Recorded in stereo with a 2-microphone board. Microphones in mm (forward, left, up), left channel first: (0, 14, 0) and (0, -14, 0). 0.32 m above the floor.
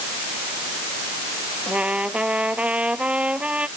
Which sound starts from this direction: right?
A trumpet, at 1.7 s.